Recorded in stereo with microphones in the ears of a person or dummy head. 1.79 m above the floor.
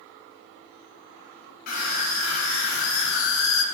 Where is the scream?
65° left (ahead or behind), 2.5 m; by 3.6 s 75° left (ahead or behind), 0.9 m.